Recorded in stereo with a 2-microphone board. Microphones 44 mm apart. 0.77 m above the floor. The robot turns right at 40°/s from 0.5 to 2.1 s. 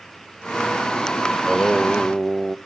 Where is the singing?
5° right (ahead or behind), 0.5 m; by 2.6 s 15° right (ahead or behind), 0.5 m.